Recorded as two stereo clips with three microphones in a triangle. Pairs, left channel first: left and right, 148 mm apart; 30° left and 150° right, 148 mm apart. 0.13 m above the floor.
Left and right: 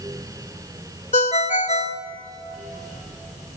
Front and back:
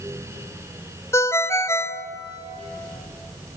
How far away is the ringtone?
About 0.6 m.